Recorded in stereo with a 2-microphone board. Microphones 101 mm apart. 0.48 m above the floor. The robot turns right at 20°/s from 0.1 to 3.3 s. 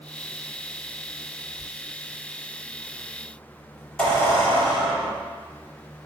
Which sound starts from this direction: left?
A squeak, at 1.6 s.